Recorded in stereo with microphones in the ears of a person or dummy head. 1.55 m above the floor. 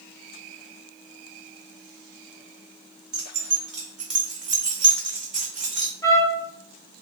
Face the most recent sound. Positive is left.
turn(degrees=25)  # may be behind; listen again after turning